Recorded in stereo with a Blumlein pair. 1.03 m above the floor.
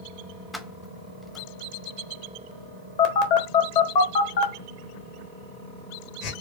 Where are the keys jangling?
5° left, 0.6 m.